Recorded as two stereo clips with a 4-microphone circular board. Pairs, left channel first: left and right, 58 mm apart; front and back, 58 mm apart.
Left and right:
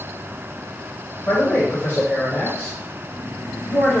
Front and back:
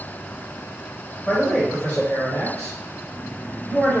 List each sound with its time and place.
1.2 s a man speaking: 70° left, 1.7 m; by 4.0 s 40° right, 1.8 m